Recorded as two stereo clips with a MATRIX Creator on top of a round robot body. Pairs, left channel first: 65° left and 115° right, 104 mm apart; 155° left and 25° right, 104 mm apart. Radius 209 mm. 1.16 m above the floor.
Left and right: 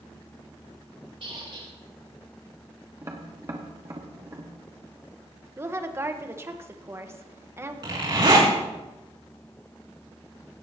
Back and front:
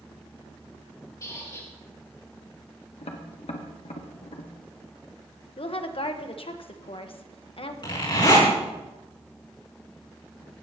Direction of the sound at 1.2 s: 145° right.